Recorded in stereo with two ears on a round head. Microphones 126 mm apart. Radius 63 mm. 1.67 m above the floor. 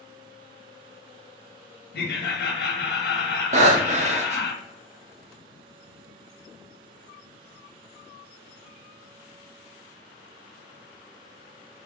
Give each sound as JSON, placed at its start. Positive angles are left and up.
{"t": 1.9, "sound": "laughter", "side_deg": 75, "distance_m": 1.2}
{"t": 3.5, "sound": "breathing", "side_deg": -50, "distance_m": 0.8}